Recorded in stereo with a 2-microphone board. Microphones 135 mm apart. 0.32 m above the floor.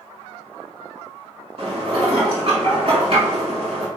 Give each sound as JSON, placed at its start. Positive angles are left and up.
{"t": 1.6, "sound": "dishes clattering", "side_deg": -45, "distance_m": 2.5}